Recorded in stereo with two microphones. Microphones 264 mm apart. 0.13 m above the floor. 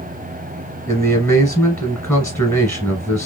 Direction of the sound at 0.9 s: 5° left (ahead or behind).